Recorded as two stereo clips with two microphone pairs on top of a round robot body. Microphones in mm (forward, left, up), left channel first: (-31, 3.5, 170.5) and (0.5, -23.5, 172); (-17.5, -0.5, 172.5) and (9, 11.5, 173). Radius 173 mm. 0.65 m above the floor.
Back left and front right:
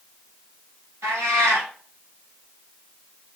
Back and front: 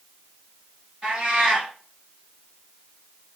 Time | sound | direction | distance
1.0 | a cat meowing | 45° right | 1.3 m